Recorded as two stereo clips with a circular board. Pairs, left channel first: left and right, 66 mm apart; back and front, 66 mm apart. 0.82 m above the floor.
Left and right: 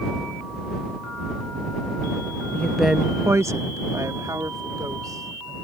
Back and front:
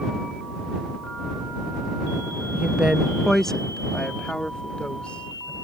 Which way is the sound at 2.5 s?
50° left.